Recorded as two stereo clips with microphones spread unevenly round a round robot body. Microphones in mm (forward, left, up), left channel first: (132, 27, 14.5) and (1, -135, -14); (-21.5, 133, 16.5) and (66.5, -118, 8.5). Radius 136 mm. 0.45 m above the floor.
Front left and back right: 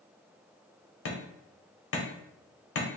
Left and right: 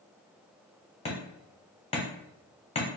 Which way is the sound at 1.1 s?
45° left.